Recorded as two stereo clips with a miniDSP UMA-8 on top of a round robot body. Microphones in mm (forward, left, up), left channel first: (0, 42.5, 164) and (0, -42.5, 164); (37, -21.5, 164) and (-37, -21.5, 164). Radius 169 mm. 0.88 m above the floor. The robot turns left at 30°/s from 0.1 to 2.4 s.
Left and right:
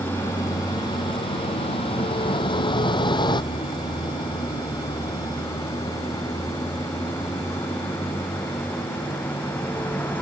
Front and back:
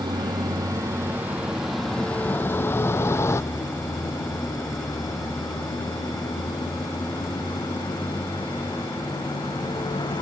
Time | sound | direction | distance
0.0 | a vehicle | 155° left | ?